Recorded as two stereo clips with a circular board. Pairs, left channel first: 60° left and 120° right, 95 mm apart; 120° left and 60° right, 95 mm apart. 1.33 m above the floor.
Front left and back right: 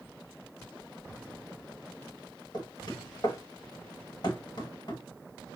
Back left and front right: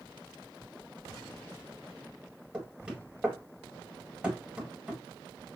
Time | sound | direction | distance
2.5 | knocking | 15° left | 1.7 m